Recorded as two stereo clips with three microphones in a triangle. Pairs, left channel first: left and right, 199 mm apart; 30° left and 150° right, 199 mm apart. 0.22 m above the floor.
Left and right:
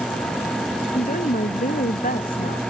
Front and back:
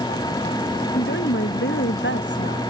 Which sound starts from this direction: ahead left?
A woman speaking, at 0.9 s.